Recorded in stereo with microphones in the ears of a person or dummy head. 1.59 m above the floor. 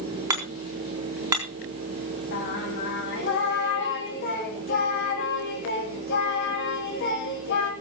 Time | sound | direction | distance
0.3 | hammering | 20° right (ahead or behind) | 4 m
2.3 | singing | 60° left (ahead or behind) | 3.5 m